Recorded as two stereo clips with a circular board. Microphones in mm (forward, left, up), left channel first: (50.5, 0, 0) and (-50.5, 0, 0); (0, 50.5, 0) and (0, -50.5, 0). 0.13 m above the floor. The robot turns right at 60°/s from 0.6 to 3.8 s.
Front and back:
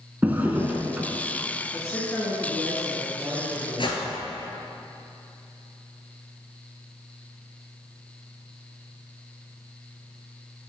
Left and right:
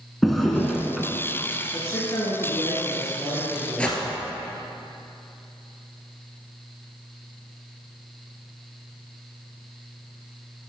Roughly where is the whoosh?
Ahead.